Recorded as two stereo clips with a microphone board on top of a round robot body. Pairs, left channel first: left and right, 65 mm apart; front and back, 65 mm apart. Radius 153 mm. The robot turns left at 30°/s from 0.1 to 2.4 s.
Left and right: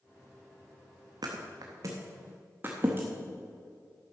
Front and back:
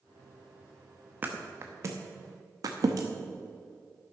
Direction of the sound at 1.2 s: 115° right.